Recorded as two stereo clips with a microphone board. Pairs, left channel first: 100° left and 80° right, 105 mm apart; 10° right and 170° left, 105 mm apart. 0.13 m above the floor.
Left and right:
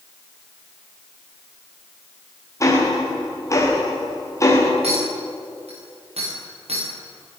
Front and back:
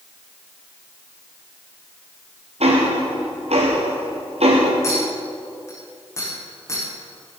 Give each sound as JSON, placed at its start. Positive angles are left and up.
{"t": 2.6, "sound": "ticking", "azimuth_deg": 160, "distance_m": 5.5}
{"t": 4.8, "sound": "a clink", "azimuth_deg": -75, "distance_m": 10.0}